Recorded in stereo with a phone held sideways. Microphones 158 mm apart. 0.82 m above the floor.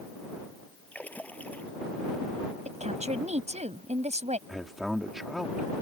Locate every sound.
0.9 s a splash: 10° left (ahead or behind)
2.6 s a woman speaking: 45° right (ahead or behind)
4.5 s a man speaking: centre (ahead or behind)